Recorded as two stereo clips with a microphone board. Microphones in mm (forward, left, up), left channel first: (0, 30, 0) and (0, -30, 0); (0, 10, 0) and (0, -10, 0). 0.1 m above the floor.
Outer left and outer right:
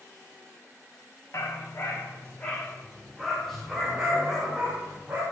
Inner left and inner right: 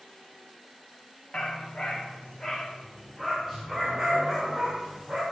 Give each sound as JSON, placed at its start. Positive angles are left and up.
{"t": 1.3, "sound": "a dog barking", "side_deg": 50, "distance_m": 3.0}